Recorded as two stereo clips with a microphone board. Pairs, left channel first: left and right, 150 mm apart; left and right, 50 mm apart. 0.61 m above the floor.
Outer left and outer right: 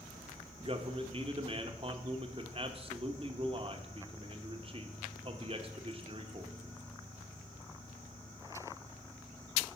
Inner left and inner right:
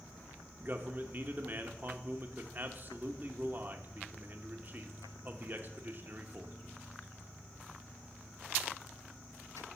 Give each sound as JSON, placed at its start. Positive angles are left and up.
{"t": 0.6, "sound": "a man speaking", "side_deg": -40, "distance_m": 1.1}